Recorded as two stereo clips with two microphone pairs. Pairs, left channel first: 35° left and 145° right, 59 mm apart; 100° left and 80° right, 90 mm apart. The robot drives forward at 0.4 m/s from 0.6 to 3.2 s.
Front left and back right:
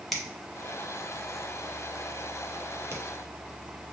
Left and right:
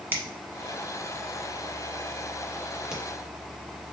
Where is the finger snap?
50° right, 1.0 m; by 3.0 s 150° right, 1.1 m.